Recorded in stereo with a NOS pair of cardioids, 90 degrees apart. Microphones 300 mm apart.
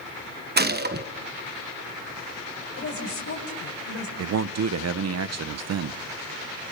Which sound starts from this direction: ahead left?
A woman speaking, at 2.8 s.